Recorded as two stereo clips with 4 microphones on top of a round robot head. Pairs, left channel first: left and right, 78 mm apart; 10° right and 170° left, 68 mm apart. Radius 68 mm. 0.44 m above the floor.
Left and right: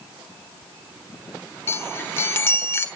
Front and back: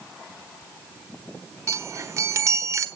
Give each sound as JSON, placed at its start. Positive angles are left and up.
{"t": 1.7, "sound": "a chime", "azimuth_deg": 140, "distance_m": 1.3}